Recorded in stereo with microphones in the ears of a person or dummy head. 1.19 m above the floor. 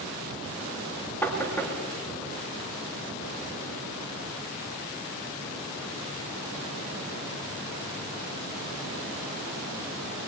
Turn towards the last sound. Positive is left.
turn(degrees=5)  # may be behind; listen again after turning